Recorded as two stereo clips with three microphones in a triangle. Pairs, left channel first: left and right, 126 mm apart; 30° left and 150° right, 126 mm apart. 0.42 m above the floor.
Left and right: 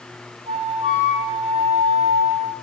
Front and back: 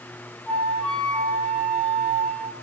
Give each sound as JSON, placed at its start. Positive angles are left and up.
{"t": 0.5, "sound": "a flute", "azimuth_deg": -55, "distance_m": 4.5}